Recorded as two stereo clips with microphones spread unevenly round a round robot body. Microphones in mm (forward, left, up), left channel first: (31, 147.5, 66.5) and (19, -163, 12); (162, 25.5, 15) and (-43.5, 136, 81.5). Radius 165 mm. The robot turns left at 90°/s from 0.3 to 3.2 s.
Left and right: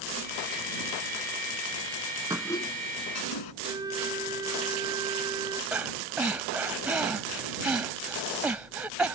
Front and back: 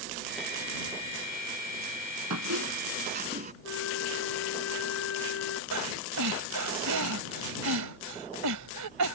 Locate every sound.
2.3 s a squeak: 175° right; by 3.5 s 105° left
3.6 s a flute: 15° right
5.7 s breathing: straight behind